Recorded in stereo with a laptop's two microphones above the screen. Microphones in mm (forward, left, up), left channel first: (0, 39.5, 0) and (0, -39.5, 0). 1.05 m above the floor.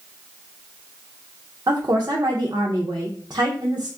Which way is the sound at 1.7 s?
60° right (ahead or behind).